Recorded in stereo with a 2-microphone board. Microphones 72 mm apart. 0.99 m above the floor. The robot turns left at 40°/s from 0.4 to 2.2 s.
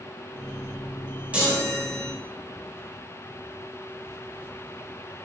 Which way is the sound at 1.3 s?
160° right.